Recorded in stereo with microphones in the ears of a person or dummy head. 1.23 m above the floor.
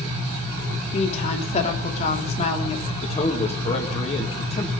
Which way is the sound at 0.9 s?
35° left (ahead or behind).